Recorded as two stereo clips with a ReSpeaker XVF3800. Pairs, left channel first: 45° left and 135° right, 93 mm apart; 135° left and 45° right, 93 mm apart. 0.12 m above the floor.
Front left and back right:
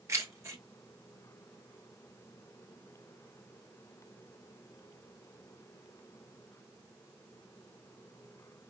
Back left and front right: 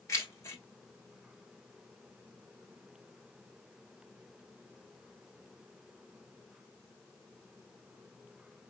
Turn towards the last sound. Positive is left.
turn(degrees=180)